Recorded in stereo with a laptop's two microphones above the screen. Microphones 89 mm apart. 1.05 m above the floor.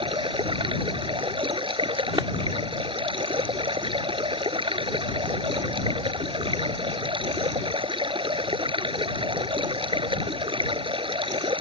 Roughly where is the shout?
No shout in this recording.